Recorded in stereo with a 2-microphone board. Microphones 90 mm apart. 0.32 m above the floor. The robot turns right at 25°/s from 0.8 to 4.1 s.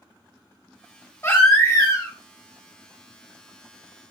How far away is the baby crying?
About 1.0 m.